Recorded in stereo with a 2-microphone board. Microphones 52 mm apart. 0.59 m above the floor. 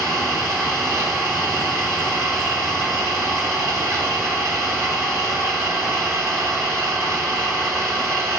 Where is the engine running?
80° right, 2.5 m.